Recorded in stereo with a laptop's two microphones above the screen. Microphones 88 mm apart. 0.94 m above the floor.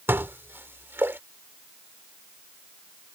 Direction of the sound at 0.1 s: 25° right (ahead or behind).